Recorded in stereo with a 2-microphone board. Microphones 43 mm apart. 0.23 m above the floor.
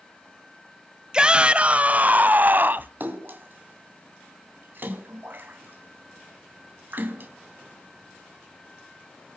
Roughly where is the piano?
I don't hear a piano.